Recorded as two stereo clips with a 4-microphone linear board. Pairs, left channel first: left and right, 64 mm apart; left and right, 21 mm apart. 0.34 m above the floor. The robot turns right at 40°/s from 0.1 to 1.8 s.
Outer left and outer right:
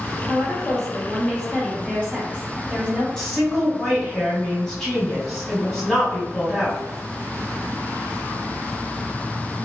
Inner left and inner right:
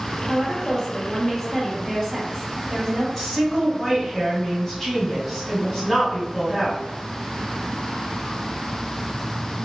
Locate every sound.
0.3 s a woman speaking: 90° left, 1.1 m; by 3.1 s 150° left, 1.1 m
3.2 s a woman speaking: 10° left (ahead or behind), 1.7 m